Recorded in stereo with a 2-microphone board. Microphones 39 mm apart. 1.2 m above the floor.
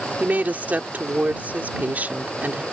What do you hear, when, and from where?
0.2 s a woman speaking: 45° right (ahead or behind)